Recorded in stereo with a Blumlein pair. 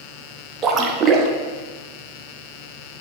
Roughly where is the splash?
Ahead right.